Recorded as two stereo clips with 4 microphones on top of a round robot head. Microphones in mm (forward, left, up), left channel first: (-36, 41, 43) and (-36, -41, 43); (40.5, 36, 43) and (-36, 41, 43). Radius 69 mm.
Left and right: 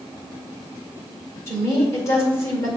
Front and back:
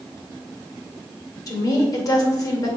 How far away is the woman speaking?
About 2.5 m.